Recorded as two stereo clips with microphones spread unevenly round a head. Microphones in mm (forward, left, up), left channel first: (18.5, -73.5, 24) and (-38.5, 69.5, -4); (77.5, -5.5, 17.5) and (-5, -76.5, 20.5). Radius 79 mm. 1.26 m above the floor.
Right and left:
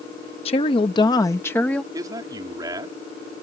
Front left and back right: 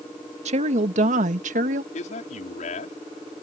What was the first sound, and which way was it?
A woman speaking, 125° right.